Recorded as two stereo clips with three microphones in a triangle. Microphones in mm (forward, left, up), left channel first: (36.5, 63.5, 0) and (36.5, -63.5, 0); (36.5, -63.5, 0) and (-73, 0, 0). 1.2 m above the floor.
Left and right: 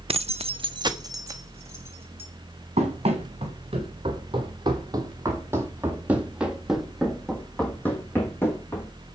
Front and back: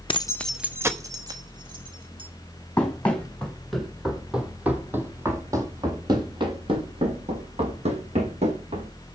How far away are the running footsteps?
About 2.5 m.